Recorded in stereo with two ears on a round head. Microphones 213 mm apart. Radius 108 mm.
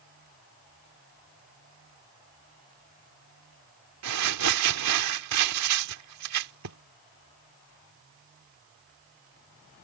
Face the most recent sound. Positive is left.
turn(degrees=-80)